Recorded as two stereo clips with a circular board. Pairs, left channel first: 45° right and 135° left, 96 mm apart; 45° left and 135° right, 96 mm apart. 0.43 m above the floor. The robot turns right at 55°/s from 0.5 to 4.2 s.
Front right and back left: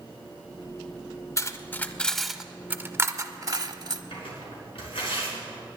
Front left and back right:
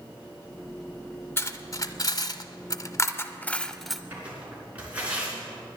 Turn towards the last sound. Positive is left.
turn(degrees=-60)